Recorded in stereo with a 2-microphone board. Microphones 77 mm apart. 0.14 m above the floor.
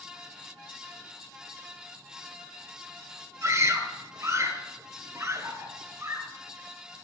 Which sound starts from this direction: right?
A scream, at 3.4 s.